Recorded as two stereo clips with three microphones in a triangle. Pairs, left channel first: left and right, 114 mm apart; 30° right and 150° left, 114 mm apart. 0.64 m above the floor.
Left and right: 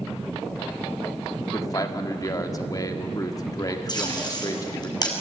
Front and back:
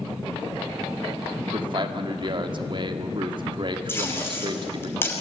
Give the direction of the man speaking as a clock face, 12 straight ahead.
8 o'clock.